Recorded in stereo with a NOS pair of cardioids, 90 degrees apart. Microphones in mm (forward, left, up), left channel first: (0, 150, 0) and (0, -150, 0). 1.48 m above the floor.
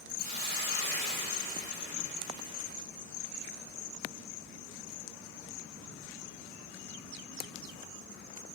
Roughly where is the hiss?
Ahead left.